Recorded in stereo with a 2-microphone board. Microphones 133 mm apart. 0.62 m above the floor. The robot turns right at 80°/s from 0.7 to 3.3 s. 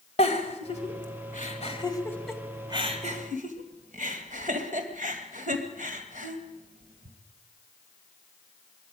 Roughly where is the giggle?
Left.